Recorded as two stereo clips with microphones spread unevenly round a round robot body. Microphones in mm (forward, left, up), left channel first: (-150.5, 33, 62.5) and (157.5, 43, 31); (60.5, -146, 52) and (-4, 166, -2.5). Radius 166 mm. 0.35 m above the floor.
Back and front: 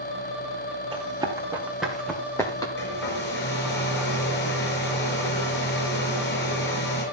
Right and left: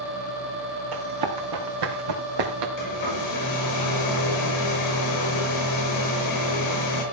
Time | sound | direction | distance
0.9 | running footsteps | 80° left | 4 m
2.8 | a hair dryer | 115° right | 5 m